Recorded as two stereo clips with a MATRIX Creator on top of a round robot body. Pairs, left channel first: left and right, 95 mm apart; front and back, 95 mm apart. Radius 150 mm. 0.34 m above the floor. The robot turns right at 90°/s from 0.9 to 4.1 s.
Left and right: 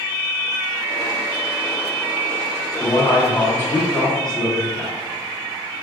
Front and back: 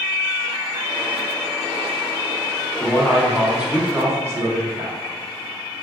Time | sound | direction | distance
2.8 | a man speaking | 45° left | 1.0 m